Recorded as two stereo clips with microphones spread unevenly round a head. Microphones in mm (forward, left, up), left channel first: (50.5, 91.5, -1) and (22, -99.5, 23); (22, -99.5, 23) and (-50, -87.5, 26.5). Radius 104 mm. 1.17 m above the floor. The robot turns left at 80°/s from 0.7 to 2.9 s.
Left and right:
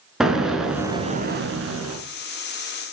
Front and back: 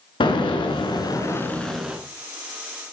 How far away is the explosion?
About 4 m.